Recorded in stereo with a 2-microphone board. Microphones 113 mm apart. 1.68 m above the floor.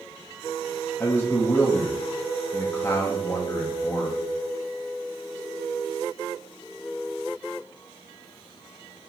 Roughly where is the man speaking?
Centre.